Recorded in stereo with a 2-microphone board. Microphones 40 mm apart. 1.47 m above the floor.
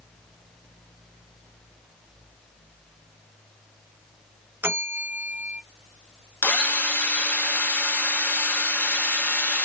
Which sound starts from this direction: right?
A bell, at 4.6 s.